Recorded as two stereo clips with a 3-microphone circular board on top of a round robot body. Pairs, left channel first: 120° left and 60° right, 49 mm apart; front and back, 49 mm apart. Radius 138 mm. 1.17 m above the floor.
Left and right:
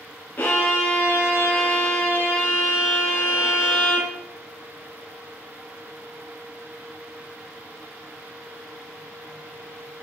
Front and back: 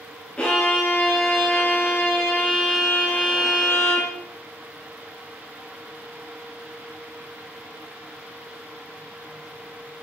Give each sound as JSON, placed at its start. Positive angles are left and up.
{"t": 0.4, "sound": "a violin", "azimuth_deg": 65, "distance_m": 0.7}